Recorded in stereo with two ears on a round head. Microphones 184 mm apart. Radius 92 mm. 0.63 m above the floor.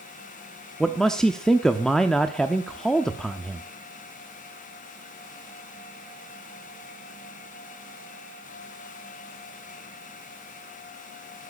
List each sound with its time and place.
0.8 s a man speaking: 5° left (ahead or behind), 0.8 m